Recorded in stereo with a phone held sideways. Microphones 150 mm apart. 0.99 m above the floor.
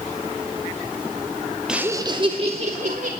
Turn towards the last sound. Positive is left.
turn(degrees=-55)  # may be behind; listen again after turning